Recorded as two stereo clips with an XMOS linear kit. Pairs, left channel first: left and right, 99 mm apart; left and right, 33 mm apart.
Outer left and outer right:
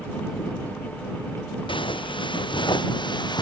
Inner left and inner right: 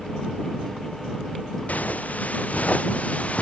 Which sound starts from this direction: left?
Footsteps, at 1.7 s.